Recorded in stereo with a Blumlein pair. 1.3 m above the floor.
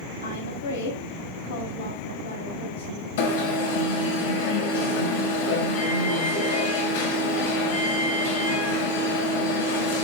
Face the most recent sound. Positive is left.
turn(degrees=55)